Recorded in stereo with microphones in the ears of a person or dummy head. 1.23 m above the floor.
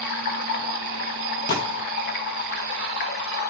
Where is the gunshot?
45° left (ahead or behind), 0.9 m.